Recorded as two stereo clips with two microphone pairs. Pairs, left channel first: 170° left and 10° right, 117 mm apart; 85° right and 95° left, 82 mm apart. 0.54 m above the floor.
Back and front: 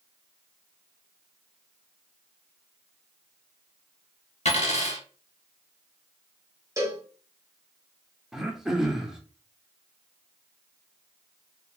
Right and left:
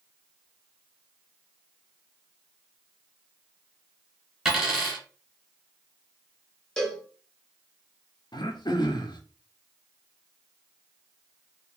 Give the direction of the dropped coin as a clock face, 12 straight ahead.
6 o'clock.